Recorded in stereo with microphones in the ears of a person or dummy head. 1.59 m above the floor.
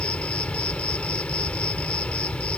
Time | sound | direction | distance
0.0 | an insect | 10° left (ahead or behind) | ?